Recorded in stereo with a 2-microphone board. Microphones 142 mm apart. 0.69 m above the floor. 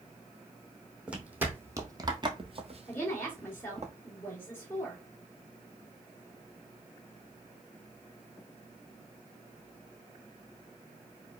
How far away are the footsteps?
About 1.4 m.